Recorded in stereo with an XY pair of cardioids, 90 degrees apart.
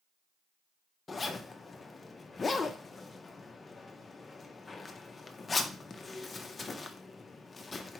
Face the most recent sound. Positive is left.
turn(degrees=35)